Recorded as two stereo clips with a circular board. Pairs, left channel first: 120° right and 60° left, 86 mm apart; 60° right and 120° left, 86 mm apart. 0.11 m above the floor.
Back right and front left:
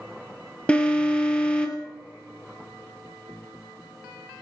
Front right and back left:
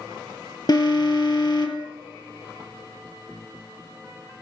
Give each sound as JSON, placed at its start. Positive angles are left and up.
{"t": 0.7, "sound": "an alarm", "azimuth_deg": -45, "distance_m": 2.0}